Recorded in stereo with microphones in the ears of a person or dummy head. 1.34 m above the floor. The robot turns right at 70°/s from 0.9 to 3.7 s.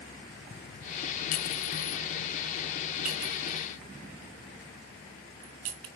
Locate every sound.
1.3 s a clink: 45° left (ahead or behind), 0.8 m; by 5.9 s 40° right (ahead or behind), 0.8 m